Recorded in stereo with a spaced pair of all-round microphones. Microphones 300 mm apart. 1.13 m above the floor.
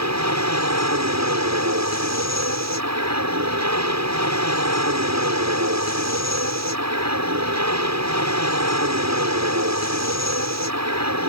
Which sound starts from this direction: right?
An aircraft, at 0.0 s.